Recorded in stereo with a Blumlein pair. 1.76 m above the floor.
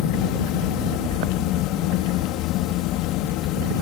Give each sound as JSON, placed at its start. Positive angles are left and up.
{"t": 0.0, "sound": "a fan", "azimuth_deg": 40}